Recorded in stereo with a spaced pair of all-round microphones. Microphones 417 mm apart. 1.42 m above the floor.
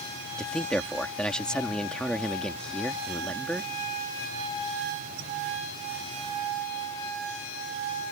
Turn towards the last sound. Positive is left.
turn(degrees=0)  # may be behind; listen again after turning